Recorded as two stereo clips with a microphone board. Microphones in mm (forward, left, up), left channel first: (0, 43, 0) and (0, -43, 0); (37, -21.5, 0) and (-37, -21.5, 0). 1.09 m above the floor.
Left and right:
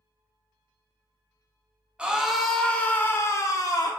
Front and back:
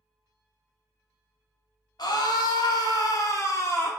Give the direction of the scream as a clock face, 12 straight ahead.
12 o'clock.